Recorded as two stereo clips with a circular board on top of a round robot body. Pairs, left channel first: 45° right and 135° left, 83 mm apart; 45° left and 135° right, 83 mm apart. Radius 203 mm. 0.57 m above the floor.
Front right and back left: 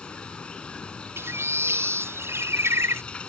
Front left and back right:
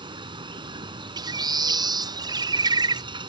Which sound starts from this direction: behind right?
Running water, at 0.0 s.